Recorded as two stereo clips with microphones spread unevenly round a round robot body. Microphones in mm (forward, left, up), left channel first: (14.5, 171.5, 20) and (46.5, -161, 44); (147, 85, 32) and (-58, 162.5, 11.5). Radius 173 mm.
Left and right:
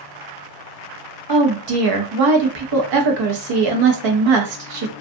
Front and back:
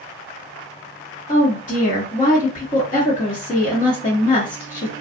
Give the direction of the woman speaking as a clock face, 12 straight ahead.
3 o'clock.